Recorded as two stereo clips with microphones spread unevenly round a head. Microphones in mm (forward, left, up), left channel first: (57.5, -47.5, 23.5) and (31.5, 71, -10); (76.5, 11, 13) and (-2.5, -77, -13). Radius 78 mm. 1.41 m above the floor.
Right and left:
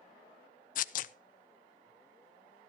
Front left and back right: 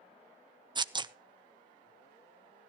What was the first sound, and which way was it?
Tearing paper, 75° right.